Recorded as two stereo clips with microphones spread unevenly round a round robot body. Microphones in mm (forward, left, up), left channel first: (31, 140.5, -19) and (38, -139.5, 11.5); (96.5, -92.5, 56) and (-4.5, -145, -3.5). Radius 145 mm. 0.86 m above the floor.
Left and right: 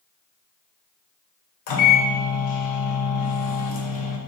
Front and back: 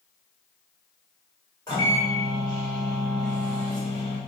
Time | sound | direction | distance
1.7 | a microwave | 105° left | 0.8 m